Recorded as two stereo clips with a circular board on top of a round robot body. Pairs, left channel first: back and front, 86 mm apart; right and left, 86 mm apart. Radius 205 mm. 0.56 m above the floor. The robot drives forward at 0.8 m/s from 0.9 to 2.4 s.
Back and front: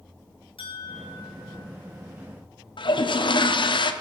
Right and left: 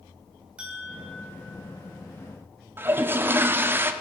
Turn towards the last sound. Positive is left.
turn(degrees=155)